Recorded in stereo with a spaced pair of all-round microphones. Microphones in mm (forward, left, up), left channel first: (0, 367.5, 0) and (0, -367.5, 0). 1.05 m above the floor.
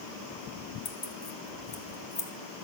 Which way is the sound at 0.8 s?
65° left (ahead or behind).